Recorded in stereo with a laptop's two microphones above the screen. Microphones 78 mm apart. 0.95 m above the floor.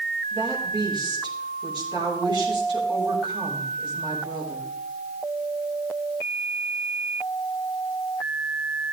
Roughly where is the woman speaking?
Right.